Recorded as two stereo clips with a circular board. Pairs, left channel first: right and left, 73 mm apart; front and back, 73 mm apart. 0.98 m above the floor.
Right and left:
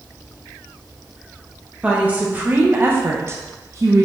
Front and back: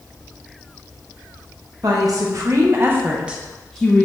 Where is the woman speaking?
160° left, 1.1 m; by 4.0 s 60° left, 0.7 m.